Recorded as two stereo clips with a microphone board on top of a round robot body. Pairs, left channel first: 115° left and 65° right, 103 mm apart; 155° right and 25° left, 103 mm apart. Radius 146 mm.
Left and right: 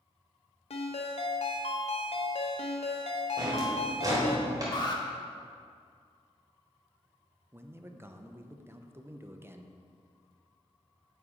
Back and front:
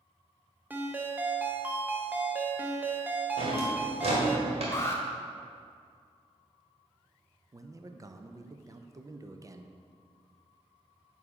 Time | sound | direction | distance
0.7 | a ringtone | 95° left | 0.8 m
3.4 | a drawer | 5° right | 1.4 m
4.7 | an alarm | 145° left | 1.1 m
7.5 | a man speaking | 15° right | 0.6 m